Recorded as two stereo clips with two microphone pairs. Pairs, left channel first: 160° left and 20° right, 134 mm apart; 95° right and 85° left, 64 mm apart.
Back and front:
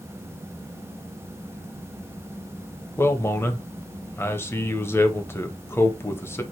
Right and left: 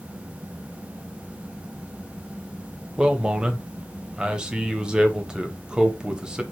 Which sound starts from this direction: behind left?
A man speaking, at 3.0 s.